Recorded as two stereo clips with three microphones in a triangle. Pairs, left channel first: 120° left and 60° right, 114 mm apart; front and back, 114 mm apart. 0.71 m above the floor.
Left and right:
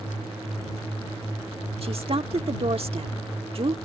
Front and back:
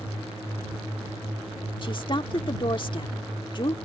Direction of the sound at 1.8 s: 35° right.